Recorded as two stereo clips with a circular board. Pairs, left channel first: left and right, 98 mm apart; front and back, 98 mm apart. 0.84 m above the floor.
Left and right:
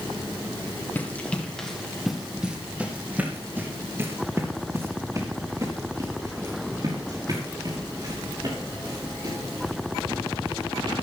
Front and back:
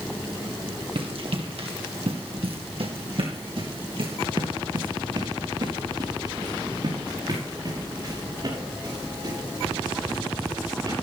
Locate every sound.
0.9 s running footsteps: 160° left, 2 m; by 11.0 s 130° right, 8.5 m